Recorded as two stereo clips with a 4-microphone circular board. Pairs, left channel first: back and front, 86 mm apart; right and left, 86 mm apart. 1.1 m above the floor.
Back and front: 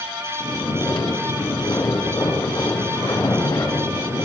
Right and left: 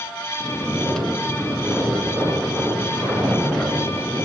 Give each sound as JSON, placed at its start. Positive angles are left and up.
{"t": 0.4, "sound": "snoring", "azimuth_deg": -175, "distance_m": 3.5}